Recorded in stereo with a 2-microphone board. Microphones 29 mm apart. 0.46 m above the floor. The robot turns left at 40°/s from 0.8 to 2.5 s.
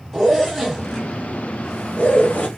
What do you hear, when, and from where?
0.1 s a zipper: centre (ahead or behind), 1.2 m; by 2.5 s 65° left (ahead or behind), 1.2 m